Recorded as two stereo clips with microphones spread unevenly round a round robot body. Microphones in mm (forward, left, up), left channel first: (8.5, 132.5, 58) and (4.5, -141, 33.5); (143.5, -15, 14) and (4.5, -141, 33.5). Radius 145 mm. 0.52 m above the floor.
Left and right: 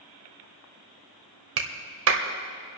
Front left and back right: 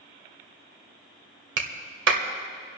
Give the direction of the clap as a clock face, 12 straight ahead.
4 o'clock.